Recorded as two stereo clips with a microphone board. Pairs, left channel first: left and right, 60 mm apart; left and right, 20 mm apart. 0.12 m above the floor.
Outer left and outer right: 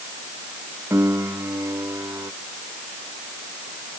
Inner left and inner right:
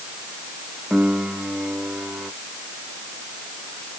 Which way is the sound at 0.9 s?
45° right (ahead or behind).